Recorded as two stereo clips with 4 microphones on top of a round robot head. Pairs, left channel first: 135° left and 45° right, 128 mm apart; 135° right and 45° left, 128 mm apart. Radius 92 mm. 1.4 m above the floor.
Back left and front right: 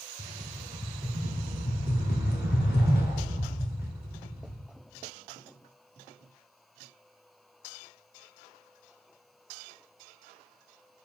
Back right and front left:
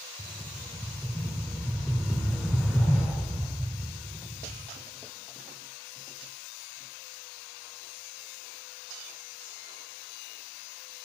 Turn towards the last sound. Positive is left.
turn(degrees=130)